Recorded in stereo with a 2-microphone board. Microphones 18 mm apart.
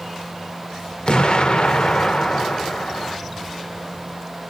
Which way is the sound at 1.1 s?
55° left (ahead or behind).